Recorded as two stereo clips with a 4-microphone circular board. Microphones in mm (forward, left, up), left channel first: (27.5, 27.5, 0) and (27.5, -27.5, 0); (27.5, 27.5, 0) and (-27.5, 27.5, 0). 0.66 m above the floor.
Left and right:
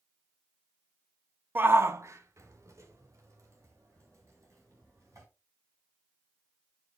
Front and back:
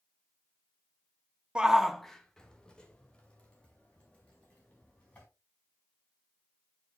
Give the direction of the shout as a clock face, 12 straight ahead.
4 o'clock.